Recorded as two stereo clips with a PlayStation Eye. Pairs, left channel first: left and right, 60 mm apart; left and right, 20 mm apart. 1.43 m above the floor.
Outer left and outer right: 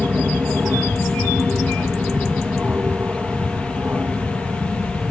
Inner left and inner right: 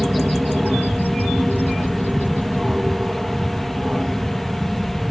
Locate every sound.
0.0 s an aircraft: 25° right (ahead or behind)